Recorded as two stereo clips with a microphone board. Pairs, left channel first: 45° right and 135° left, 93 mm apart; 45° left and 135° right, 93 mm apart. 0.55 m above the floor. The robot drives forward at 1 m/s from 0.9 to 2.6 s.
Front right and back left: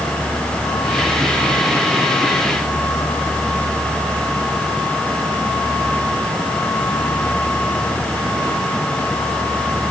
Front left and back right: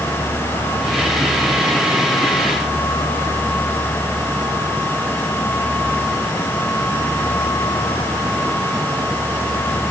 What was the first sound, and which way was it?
Only background noise.